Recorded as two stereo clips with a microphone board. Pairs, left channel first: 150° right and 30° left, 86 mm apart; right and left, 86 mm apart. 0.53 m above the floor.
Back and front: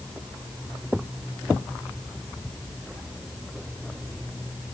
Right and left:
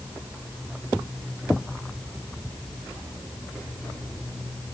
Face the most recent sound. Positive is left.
No sound to turn to.